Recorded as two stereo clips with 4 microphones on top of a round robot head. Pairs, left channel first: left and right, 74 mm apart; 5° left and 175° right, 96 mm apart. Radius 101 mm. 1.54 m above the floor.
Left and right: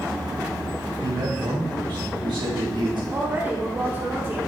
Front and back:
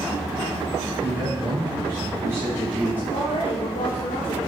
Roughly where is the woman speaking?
Ahead right.